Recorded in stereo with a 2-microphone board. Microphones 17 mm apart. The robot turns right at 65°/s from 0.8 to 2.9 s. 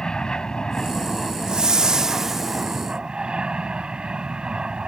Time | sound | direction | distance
0.0 | an aircraft | 120° left | ?
1.5 | a whoosh | 95° right | ?